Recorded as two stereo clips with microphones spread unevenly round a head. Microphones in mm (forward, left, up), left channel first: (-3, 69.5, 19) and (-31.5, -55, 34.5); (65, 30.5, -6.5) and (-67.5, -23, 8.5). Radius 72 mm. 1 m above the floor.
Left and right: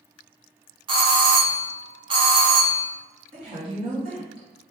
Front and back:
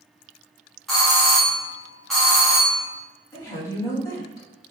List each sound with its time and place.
0.9 s a doorbell: 60° right, 1.5 m
3.3 s a woman speaking: 50° right, 2 m